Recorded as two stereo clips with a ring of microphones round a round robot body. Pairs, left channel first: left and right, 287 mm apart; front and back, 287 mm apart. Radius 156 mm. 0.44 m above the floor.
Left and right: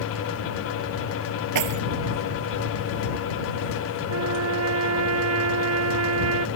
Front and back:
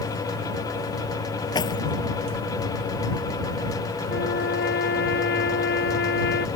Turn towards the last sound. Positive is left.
turn(degrees=-60)